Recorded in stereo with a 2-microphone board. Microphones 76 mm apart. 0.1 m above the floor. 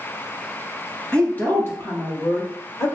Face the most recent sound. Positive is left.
turn(degrees=55)  # may be behind; listen again after turning